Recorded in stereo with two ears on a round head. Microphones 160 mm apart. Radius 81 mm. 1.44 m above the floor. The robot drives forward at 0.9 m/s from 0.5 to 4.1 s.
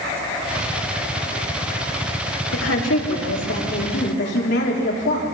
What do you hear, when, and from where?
2.5 s a woman speaking: 85° left, 4 m; by 5.2 s 70° left (ahead or behind), 4 m